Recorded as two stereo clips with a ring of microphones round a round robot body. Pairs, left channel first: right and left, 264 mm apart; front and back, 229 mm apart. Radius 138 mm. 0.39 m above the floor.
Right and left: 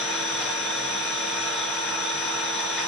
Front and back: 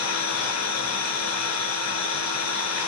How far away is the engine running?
About 6 m.